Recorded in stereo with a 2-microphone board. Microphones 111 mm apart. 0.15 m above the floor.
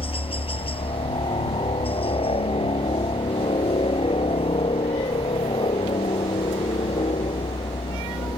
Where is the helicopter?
55° left (ahead or behind); by 8.4 s 60° left (ahead or behind).